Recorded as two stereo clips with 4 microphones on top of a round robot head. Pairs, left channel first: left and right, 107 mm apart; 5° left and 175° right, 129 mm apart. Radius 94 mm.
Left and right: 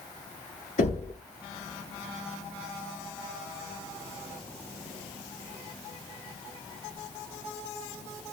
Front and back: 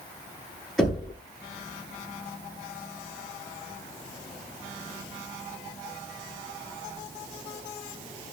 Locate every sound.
0.8 s knocking: 95° left, 7.5 m